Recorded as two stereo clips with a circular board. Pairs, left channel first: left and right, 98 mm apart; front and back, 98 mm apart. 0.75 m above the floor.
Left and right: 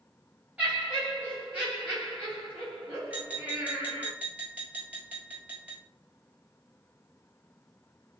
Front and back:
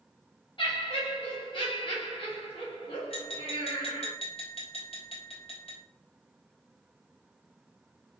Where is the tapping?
15° right, 1.5 m.